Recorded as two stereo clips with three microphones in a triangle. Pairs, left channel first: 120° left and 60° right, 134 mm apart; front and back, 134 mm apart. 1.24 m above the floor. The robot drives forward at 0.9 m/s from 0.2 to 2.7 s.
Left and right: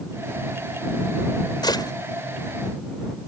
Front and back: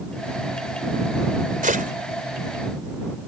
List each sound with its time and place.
1.6 s a gunshot: straight behind